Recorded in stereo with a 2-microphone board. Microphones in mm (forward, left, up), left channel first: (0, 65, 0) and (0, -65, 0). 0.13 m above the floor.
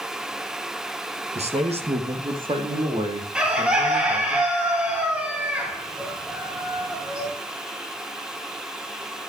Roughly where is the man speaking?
Right.